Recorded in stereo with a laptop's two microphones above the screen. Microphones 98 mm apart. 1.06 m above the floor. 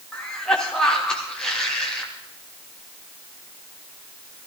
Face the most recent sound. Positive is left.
turn(degrees=5)  # may be behind; listen again after turning